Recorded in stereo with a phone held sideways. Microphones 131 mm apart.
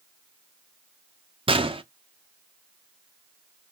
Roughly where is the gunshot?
Right.